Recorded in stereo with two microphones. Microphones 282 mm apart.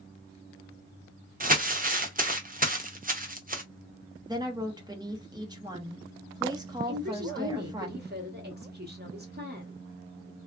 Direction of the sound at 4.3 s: 15° right (ahead or behind).